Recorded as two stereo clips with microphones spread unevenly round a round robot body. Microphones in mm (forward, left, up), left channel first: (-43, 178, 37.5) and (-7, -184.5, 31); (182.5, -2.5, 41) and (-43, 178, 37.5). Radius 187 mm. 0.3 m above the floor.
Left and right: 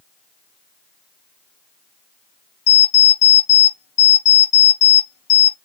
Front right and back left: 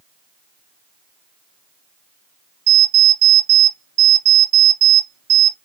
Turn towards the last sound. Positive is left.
turn(degrees=95)